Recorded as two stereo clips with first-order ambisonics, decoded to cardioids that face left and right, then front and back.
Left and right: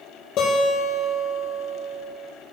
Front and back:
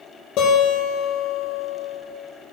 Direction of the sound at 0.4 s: 45° left.